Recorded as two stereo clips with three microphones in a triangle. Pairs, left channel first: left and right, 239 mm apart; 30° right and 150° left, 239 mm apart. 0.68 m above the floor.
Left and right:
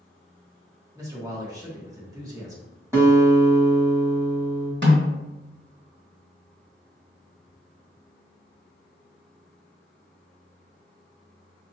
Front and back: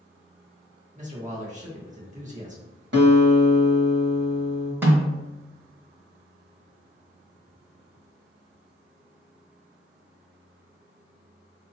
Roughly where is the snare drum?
Behind right.